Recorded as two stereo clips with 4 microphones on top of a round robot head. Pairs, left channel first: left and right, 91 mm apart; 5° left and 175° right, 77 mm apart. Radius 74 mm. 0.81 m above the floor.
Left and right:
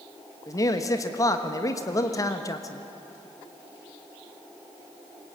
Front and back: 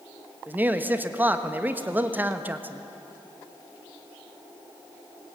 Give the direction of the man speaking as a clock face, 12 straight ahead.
8 o'clock.